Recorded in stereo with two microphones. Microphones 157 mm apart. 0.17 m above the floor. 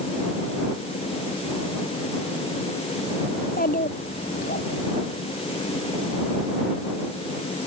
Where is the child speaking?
70° left (ahead or behind).